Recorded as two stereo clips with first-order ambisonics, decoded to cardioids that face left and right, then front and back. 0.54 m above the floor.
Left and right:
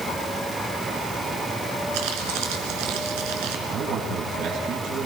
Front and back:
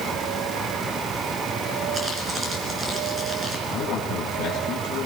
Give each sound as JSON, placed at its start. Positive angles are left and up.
{"t": 1.9, "sound": "crumpling", "azimuth_deg": -105, "distance_m": 3.5}
{"t": 3.7, "sound": "a man speaking", "azimuth_deg": -50, "distance_m": 4.5}